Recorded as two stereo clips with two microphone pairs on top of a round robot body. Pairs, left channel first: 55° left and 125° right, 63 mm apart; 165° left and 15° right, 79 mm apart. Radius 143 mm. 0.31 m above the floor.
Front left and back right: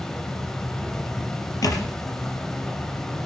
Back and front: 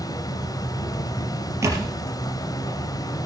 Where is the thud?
40° left, 4.5 m.